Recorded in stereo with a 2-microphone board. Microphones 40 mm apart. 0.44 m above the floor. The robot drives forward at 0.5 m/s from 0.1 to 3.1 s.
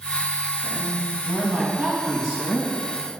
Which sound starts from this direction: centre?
A woman speaking, at 0.6 s.